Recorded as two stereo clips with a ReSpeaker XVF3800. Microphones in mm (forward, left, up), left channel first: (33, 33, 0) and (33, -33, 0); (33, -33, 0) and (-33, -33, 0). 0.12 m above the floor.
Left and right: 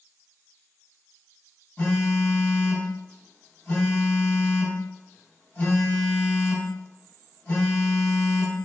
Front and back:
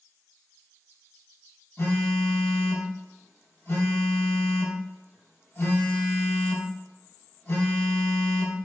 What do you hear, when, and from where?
1.8 s a phone buzzing: 25° left, 2 m